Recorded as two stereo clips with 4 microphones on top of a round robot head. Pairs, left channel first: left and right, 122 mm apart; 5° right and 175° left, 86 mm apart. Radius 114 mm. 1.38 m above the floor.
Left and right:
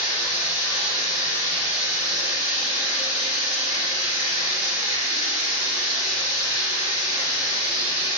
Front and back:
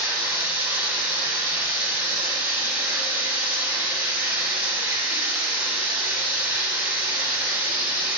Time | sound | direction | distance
0.0 | running water | 100° left | 4.5 m